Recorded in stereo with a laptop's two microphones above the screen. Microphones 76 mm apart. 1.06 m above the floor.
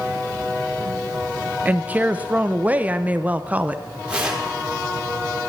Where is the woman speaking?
20° right (ahead or behind), 0.7 m.